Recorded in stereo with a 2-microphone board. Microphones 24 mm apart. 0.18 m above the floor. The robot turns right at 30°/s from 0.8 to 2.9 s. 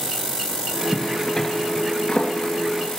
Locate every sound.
0.9 s a zipper: 15° left (ahead or behind), 2.5 m; by 3.0 s 60° left (ahead or behind), 2.5 m